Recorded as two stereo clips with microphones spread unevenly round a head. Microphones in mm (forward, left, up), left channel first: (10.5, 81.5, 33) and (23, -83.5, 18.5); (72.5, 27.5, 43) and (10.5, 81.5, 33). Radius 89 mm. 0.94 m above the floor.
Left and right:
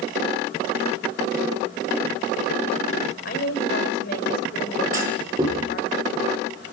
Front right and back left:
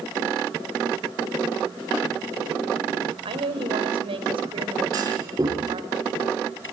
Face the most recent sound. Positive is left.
turn(degrees=-160)